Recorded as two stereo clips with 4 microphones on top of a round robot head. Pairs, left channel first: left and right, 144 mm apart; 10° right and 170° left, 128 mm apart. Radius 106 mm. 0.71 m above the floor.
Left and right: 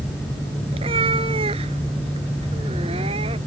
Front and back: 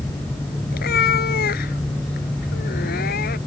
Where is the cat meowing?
25° right.